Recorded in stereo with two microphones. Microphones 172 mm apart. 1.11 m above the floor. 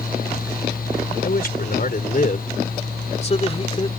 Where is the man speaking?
65° left (ahead or behind); by 3.9 s 30° left (ahead or behind).